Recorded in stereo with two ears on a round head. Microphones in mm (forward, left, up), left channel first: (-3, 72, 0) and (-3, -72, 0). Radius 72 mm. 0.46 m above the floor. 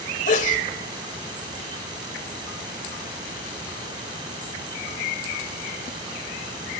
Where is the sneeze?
50° left (ahead or behind), 1.5 m.